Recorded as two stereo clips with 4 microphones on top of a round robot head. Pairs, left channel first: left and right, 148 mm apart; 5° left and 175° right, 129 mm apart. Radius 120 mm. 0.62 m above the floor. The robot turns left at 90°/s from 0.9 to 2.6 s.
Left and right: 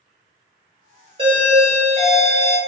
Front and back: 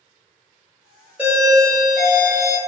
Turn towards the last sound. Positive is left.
turn(degrees=130)